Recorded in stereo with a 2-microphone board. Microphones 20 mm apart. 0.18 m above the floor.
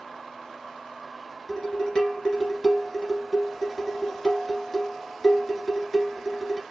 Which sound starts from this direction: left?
Dishes clattering, at 1.5 s.